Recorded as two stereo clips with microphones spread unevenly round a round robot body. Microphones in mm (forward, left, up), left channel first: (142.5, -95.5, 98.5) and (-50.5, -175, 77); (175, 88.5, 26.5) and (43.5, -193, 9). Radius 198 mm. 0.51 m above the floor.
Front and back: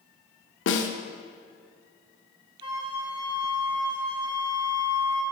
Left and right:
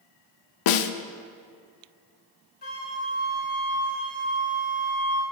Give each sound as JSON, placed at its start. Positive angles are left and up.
{"t": 0.7, "sound": "a snare drum", "azimuth_deg": 60, "distance_m": 0.6}
{"t": 2.6, "sound": "a flute", "azimuth_deg": 135, "distance_m": 1.1}